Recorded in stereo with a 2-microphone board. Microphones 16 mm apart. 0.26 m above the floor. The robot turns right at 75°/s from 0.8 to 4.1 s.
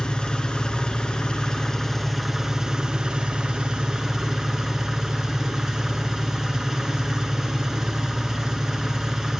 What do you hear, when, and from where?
0.0 s an engine running: 75° left, 1.6 m; by 9.4 s 35° right, 1.6 m